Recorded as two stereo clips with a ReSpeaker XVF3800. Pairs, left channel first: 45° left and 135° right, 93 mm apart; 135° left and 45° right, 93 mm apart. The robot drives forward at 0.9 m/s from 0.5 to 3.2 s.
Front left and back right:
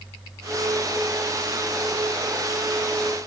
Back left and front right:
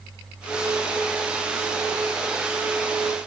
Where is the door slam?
No door slam in this recording.